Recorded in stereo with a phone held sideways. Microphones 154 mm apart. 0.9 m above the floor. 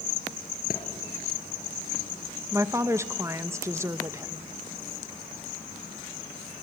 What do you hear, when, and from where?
0.7 s a thud: 70° left (ahead or behind), 3 m
2.5 s a woman speaking: 20° right (ahead or behind), 0.7 m